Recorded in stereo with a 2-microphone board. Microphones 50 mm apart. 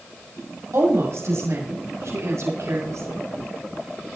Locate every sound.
0.7 s a woman speaking: 70° right (ahead or behind), 5.5 m; by 3.2 s 80° right, 6.5 m